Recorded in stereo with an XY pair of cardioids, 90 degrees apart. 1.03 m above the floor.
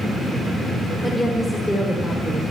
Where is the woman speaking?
15° left, 2.5 m; by 2.4 s 25° left, 3.5 m.